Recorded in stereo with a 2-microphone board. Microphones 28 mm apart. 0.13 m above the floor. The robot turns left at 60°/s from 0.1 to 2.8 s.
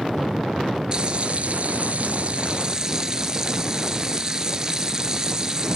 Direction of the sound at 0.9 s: 40° right.